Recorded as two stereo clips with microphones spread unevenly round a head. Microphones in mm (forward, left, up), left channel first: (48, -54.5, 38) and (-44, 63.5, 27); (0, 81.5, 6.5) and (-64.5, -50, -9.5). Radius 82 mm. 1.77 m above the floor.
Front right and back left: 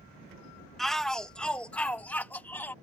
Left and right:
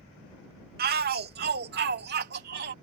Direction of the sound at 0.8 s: 140° right.